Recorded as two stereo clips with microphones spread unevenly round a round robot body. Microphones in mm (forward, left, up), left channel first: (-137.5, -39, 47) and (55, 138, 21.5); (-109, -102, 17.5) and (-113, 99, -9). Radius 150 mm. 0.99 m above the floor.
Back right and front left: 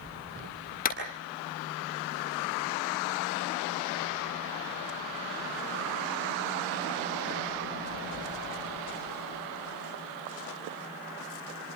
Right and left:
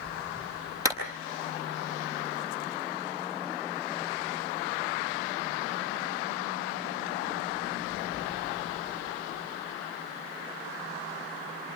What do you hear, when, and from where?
0.8 s a clap: 165° left, 8 m